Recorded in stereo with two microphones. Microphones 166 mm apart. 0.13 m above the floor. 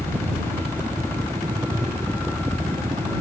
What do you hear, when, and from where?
0.0 s a helicopter: 15° right (ahead or behind)